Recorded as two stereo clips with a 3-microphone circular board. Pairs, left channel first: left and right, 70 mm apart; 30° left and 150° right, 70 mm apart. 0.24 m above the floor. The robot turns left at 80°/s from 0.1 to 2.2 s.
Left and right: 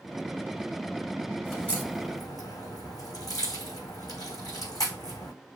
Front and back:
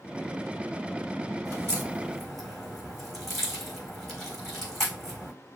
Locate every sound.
1.4 s a crack: straight behind, 4 m; by 5.3 s 120° left, 4 m